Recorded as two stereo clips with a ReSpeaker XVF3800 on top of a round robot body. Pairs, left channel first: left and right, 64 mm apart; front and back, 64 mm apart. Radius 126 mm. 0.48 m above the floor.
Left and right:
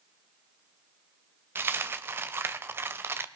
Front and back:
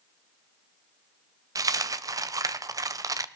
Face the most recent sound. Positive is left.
turn(degrees=-150)